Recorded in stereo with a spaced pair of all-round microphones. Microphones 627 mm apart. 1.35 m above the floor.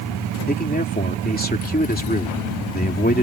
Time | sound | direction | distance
0.5 | a man speaking | 15° left (ahead or behind) | ?